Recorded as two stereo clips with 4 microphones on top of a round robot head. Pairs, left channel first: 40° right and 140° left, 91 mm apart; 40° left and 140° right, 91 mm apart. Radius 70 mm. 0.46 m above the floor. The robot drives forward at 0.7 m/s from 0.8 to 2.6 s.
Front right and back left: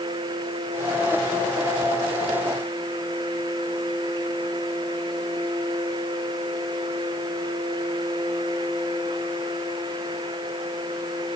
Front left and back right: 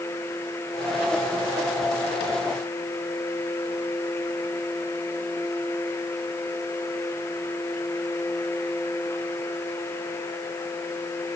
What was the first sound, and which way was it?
Only background noise.